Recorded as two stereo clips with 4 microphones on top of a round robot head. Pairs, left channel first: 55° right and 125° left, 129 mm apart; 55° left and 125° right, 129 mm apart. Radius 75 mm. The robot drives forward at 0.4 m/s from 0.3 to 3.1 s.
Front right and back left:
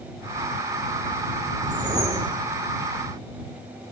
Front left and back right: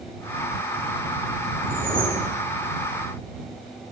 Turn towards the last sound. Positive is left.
turn(degrees=-175)